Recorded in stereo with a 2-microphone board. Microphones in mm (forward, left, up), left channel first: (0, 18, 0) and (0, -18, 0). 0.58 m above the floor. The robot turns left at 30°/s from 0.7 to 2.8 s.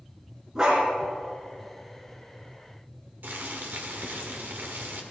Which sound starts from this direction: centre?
A dog barking, at 0.6 s.